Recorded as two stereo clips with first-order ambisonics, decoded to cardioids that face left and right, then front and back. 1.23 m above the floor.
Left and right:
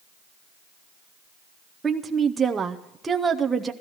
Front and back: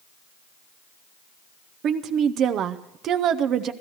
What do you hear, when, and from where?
1.8 s a woman speaking: 160° right, 0.7 m